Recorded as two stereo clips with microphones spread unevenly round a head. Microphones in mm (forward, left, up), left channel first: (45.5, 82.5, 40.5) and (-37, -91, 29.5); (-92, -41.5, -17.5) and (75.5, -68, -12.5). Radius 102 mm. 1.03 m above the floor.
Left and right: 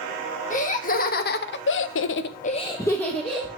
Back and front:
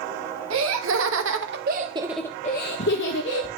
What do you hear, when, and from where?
0.5 s laughter: 10° left, 1.5 m; by 3.5 s 155° left, 1.2 m